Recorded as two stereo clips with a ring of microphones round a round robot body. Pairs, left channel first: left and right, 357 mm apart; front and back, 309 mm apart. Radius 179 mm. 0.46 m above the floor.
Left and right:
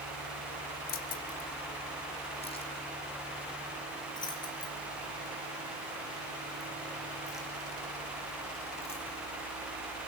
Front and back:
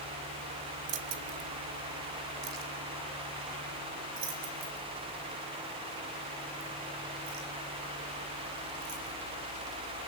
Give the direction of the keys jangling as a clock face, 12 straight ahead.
7 o'clock.